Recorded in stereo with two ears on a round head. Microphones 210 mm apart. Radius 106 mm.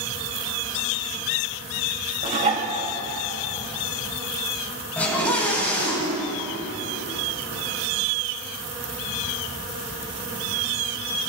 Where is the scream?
5° left (ahead or behind), 9 m.